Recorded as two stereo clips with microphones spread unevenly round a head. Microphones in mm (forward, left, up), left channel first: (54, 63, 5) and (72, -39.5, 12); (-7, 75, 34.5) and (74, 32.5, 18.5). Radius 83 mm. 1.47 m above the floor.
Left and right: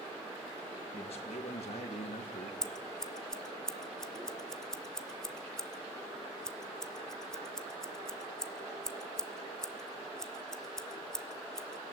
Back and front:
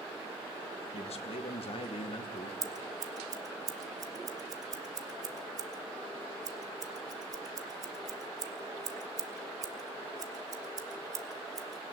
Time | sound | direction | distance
0.9 | a man speaking | 150° left | 1.9 m
2.6 | scissors | 15° left | 1.1 m